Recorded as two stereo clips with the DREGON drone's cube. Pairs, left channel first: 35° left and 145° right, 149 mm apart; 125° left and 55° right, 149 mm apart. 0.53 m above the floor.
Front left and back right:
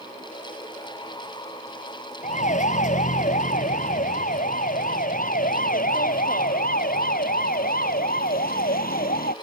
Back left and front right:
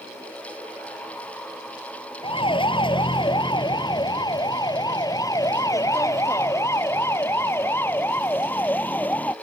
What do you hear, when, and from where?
2.2 s a siren: 70° left; by 9.3 s 45° left